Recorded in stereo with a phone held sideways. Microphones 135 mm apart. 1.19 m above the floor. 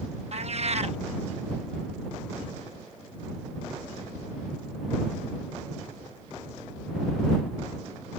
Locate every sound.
0.3 s a cat meowing: 55° right (ahead or behind)